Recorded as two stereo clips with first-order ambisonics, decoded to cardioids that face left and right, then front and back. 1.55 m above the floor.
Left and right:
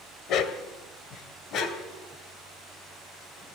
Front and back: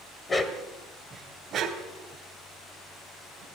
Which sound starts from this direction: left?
A dog barking, at 0.3 s.